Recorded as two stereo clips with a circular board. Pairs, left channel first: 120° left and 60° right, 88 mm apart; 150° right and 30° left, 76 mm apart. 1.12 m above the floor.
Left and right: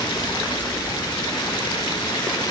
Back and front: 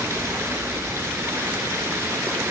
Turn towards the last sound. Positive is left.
turn(degrees=85)